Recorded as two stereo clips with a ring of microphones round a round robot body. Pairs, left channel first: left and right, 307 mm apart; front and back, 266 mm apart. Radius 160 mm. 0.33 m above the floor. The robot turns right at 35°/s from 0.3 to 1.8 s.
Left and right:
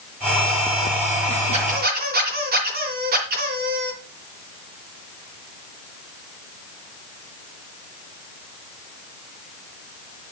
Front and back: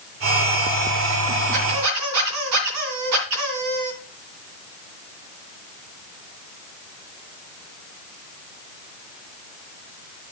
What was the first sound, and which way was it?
A squeak, 160° right.